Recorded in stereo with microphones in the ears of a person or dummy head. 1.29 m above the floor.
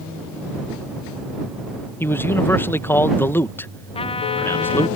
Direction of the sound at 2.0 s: 10° left (ahead or behind).